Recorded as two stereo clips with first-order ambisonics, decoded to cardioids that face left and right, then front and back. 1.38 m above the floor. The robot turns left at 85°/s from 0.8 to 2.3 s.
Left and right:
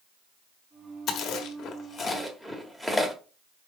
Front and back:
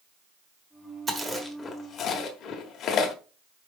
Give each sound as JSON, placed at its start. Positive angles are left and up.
{"t": 1.1, "sound": "chewing", "azimuth_deg": 115, "distance_m": 1.2}